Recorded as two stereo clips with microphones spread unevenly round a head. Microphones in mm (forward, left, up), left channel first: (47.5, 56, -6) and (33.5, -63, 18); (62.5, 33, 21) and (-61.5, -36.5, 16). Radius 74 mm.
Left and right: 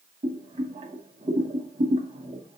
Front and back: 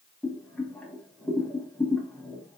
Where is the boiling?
55° right, 0.9 m.